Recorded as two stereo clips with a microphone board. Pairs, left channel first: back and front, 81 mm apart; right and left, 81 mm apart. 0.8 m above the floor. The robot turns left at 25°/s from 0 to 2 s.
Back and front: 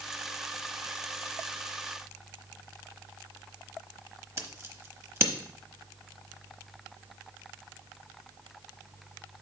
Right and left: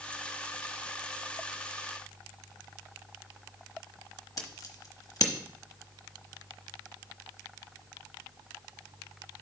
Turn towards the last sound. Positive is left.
turn(degrees=-50)